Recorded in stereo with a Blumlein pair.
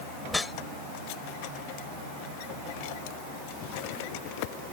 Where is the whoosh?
10° left.